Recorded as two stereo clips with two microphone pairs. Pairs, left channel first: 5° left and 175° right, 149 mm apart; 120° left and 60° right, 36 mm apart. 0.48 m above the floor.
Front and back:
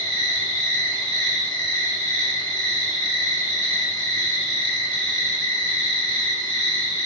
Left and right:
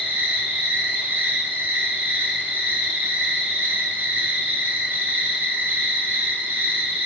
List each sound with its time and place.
0.0 s an insect: 60° right, 3.5 m